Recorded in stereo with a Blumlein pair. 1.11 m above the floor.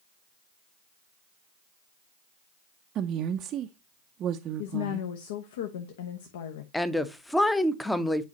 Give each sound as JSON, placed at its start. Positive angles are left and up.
{"t": 3.0, "sound": "a woman speaking", "azimuth_deg": -30, "distance_m": 0.6}
{"t": 4.6, "sound": "a woman speaking", "azimuth_deg": 55, "distance_m": 0.9}
{"t": 6.7, "sound": "a woman speaking", "azimuth_deg": 5, "distance_m": 0.7}